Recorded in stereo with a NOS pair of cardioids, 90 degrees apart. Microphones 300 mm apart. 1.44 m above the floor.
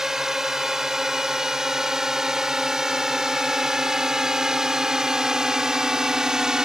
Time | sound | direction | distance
0.0 | a drone | straight ahead | ?